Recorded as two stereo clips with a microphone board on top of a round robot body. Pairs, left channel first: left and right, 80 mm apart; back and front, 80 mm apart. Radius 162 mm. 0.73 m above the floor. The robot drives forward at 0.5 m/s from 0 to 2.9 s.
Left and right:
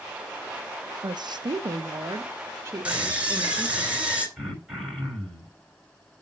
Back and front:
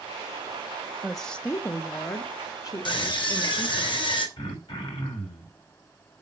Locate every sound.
1.0 s a woman speaking: 85° right, 0.7 m; by 3.9 s 145° right, 1.2 m
2.9 s a scream: 165° right, 3.5 m
4.4 s throat clearing: 170° right, 5.5 m